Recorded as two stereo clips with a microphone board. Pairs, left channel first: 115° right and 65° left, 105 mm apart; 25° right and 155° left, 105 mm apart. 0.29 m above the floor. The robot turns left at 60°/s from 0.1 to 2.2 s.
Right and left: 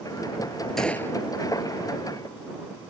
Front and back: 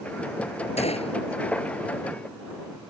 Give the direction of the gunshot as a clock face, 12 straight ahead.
1 o'clock.